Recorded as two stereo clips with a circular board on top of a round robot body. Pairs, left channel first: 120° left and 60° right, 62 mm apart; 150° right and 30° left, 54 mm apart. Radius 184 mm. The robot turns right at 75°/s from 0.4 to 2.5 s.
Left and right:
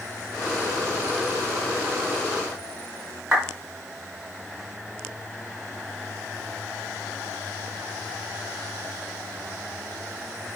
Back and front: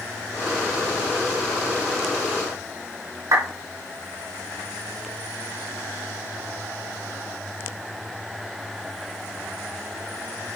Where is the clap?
25° left, 4.5 m.